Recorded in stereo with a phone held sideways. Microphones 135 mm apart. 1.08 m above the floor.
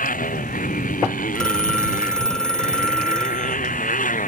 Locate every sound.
0.0 s a motorcycle: 70° left (ahead or behind)
1.4 s a phone ringing: 5° left (ahead or behind)